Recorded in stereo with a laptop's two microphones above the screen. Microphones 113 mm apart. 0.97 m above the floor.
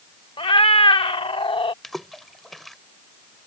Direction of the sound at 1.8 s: Centre (ahead or behind).